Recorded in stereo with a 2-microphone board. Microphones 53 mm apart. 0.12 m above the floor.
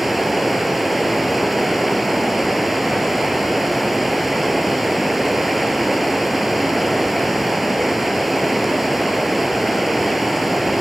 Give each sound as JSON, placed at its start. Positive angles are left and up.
{"t": 0.0, "sound": "running water", "side_deg": 0, "distance_m": 1.1}